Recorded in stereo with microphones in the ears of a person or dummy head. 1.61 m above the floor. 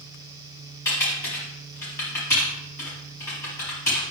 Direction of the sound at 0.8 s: 15° left (ahead or behind).